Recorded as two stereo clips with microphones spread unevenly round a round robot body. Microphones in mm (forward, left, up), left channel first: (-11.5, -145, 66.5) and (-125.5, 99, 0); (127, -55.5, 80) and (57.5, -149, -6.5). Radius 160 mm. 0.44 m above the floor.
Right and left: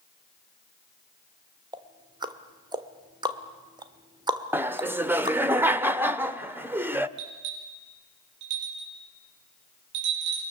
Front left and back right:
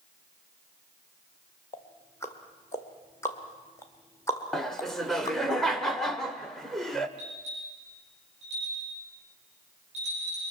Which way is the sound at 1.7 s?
160° left.